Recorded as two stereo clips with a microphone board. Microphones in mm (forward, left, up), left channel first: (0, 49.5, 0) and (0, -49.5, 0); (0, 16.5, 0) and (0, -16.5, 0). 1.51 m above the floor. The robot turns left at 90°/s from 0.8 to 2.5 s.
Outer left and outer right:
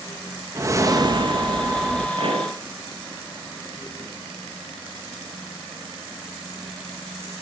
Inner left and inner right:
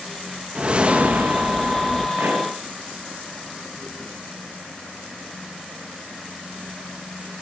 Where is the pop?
60° right (ahead or behind), 6 m; by 2.5 s 85° right, 6 m.